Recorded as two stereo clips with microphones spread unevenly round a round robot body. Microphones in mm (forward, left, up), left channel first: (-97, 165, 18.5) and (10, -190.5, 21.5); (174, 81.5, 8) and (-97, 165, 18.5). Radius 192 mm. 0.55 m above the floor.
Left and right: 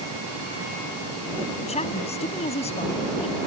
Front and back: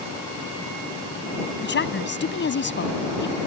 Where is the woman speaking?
30° left.